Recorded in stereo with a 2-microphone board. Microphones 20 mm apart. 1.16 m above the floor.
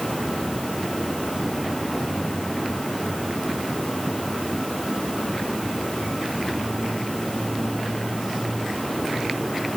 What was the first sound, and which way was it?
Only background noise.